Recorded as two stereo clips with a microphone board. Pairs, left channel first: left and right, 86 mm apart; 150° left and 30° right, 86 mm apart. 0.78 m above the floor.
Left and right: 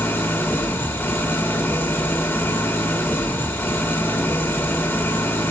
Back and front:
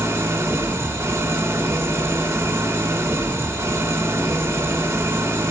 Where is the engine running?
30° left, 1.8 m.